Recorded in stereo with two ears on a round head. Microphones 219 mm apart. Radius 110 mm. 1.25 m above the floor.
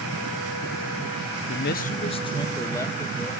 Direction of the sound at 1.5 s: 50° left (ahead or behind).